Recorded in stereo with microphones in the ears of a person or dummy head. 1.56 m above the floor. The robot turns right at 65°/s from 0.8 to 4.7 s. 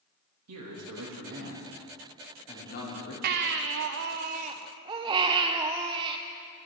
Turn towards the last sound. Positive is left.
turn(degrees=-25)